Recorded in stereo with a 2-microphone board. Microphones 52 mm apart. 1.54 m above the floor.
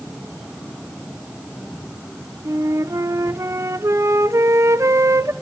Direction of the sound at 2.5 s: 70° right (ahead or behind).